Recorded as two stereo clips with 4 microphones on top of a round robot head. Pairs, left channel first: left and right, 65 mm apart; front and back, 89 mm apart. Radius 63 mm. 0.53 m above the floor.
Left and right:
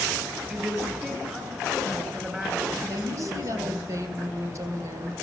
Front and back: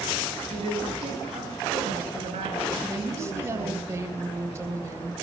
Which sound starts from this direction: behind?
A woman speaking, at 0.5 s.